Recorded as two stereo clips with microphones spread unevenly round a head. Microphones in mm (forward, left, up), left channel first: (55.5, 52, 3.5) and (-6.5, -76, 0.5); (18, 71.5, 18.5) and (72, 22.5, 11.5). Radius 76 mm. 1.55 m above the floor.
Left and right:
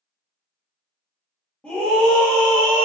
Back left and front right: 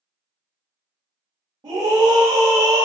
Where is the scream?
20° right, 0.8 m.